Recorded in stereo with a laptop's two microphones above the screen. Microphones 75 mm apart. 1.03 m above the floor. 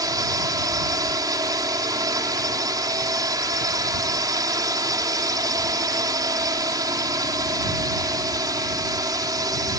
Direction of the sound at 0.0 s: 65° right (ahead or behind).